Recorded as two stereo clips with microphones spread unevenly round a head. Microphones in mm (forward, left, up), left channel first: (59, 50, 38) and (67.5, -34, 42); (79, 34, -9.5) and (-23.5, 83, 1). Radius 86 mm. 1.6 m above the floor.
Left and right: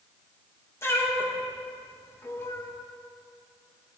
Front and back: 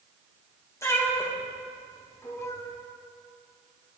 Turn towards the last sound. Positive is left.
turn(degrees=40)